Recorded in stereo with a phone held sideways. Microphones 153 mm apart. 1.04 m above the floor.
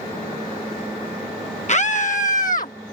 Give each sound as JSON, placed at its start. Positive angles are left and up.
{"t": 1.7, "sound": "a scream", "side_deg": 50}